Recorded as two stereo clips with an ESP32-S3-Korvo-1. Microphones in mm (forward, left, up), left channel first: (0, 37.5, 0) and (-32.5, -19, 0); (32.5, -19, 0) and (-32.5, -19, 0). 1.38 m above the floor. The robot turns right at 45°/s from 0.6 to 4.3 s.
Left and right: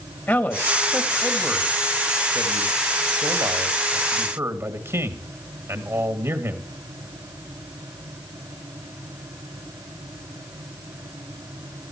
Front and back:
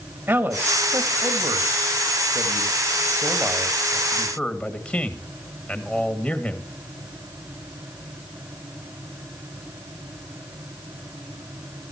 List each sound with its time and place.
0.3 s a man speaking: 115° left, 2 m; by 6.7 s 80° right, 2 m